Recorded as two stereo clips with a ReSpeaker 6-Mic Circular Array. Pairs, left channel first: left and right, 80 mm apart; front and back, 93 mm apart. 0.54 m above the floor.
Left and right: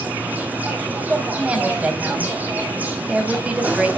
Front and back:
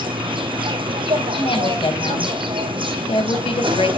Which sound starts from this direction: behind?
An insect, at 0.0 s.